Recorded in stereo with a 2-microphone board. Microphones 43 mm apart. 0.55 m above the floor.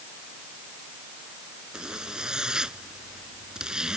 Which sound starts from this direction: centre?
A zipper, at 1.7 s.